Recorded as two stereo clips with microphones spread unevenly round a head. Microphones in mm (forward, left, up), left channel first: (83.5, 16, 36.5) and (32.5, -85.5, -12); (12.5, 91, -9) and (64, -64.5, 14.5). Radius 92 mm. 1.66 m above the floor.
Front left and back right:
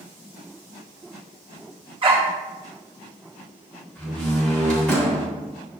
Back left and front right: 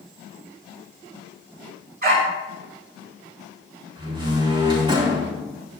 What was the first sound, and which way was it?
A dog barking, 65° right.